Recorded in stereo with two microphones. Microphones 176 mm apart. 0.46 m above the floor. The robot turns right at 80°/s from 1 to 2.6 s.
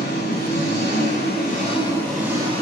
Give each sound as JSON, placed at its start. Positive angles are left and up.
{"t": 0.0, "sound": "an engine running", "azimuth_deg": 90, "distance_m": 9.5}